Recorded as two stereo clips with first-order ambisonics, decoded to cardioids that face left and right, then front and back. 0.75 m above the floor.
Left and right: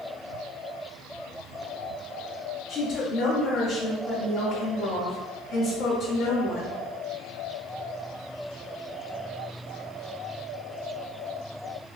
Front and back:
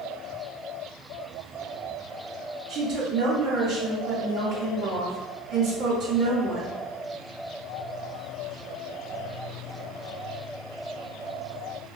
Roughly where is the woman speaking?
Behind left.